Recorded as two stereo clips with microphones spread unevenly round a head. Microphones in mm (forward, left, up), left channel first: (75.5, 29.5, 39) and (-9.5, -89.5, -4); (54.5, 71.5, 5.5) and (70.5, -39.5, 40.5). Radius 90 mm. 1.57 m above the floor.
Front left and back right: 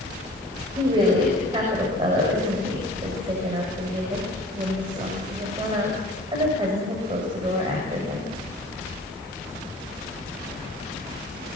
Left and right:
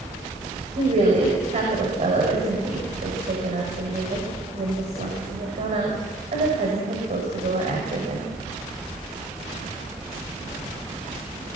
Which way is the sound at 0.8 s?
65° right.